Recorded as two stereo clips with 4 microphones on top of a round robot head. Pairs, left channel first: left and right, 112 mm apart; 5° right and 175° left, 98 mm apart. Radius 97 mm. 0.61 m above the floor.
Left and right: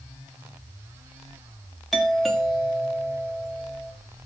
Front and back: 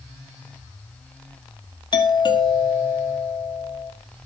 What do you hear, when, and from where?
1.9 s a doorbell: straight ahead, 1.8 m